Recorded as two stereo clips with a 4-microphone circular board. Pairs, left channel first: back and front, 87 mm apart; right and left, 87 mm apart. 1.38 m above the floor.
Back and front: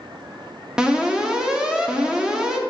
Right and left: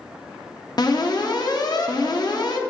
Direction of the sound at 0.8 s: 80° right.